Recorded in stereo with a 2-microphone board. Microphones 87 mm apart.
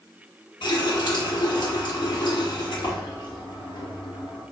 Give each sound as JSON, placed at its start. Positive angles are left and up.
{"t": 0.6, "sound": "a running tap", "side_deg": 65, "distance_m": 1.2}